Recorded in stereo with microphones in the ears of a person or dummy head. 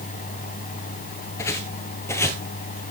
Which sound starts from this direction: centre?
Footsteps, at 1.4 s.